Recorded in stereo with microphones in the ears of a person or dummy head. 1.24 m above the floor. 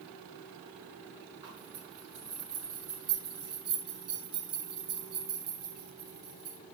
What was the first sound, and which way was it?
A zipper, 30° right (ahead or behind).